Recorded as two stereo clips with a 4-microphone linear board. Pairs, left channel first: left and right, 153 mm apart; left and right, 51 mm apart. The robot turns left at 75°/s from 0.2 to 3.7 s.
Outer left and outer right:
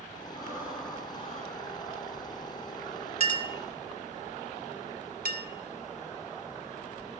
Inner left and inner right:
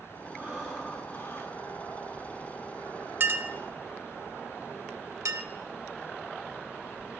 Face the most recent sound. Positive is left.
turn(degrees=-80)